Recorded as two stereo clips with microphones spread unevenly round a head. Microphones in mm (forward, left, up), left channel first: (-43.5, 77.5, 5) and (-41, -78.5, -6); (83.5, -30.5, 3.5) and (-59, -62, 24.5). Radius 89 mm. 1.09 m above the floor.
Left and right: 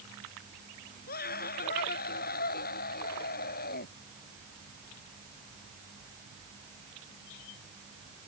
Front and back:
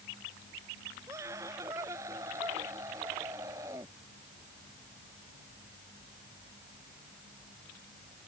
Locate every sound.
1.1 s a scream: 115° left